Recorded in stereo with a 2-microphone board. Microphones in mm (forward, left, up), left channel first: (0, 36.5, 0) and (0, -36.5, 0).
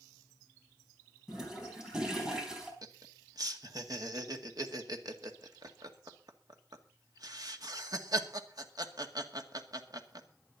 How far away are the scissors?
No scissors in this recording.